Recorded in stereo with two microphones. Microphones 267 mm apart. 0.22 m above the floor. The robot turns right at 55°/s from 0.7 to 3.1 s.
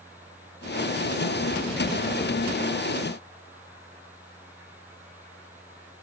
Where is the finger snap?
I don't hear a finger snap.